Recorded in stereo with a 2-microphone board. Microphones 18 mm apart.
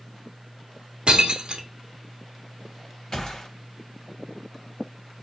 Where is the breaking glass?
60° right (ahead or behind), 0.8 m.